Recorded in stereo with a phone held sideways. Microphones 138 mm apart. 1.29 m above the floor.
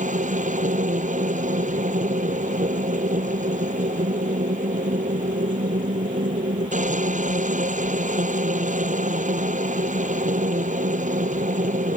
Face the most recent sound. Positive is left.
turn(degrees=-65)  # may be behind; listen again after turning